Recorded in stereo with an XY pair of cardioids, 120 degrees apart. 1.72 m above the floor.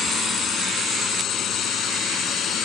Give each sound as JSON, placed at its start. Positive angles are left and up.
{"t": 0.0, "sound": "a drone", "azimuth_deg": 50}